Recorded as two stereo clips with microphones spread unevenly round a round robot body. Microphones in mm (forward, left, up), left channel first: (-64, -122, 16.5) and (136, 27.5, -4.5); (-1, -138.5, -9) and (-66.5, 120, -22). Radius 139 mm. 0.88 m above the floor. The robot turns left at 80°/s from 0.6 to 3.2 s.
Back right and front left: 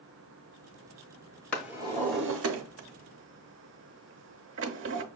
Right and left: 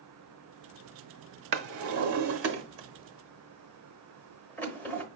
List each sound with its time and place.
1.5 s a drawer: 140° left, 0.8 m; by 5.0 s 5° left, 0.8 m